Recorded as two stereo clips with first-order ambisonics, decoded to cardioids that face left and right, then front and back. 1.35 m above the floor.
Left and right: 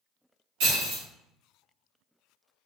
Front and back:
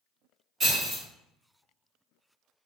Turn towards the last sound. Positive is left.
turn(degrees=-115)